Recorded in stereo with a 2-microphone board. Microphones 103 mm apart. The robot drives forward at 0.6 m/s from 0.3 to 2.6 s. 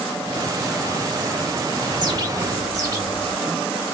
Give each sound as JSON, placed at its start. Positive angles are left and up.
{"t": 1.9, "sound": "a bird", "side_deg": -45, "distance_m": 1.0}